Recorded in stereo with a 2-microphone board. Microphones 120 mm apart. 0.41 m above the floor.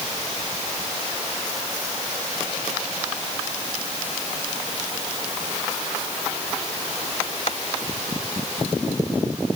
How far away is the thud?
I don't hear a thud.